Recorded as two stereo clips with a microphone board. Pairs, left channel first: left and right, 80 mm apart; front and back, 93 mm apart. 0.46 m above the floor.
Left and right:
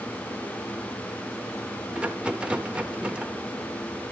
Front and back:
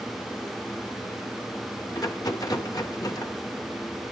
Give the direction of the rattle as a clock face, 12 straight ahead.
1 o'clock.